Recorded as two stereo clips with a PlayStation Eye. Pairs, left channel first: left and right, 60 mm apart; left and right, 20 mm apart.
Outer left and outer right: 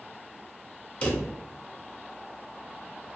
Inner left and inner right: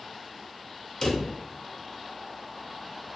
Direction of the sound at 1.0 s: 20° left (ahead or behind).